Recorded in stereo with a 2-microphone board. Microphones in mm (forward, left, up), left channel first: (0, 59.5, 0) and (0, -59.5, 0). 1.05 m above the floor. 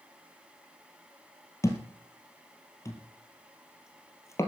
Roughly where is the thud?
Left.